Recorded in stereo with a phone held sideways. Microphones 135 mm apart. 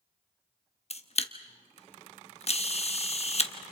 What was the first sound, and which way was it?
A camera shutter, 50° left (ahead or behind).